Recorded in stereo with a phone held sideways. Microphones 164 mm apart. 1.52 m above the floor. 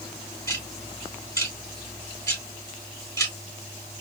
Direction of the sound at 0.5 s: 20° left (ahead or behind).